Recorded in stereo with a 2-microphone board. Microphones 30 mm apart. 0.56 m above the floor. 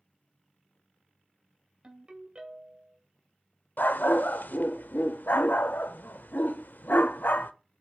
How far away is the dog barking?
About 0.5 m.